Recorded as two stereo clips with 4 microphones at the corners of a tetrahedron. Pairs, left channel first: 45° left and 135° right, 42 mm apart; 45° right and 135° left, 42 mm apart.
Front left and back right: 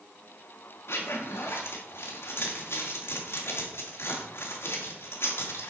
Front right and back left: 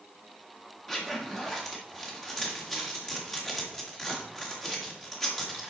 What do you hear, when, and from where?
0.9 s a zipper: 35° left, 2.0 m